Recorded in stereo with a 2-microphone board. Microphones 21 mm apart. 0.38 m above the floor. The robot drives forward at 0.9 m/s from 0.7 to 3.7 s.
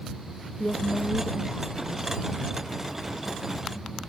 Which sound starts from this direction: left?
A woman speaking, at 0.6 s.